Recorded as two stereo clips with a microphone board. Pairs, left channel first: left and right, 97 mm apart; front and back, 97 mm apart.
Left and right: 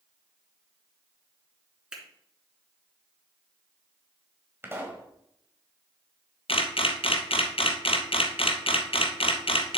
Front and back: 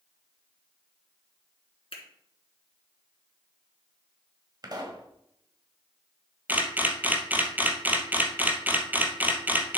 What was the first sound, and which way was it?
A finger snap, 10° right.